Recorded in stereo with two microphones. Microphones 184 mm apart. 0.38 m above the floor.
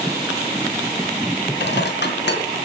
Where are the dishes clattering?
70° left (ahead or behind), 2.5 m.